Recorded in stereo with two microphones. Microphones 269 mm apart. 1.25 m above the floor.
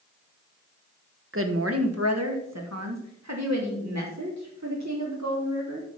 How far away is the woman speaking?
About 1.1 m.